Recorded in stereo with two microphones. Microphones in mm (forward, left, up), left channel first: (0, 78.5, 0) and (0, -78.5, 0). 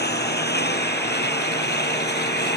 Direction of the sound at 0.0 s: 80° left.